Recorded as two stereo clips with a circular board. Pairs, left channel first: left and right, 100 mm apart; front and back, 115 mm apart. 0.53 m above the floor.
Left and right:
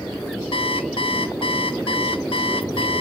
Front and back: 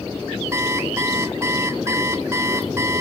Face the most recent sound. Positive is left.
turn(degrees=115)